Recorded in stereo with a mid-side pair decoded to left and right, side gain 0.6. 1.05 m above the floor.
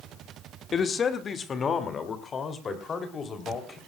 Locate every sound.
0.7 s a man speaking: 35° left, 2 m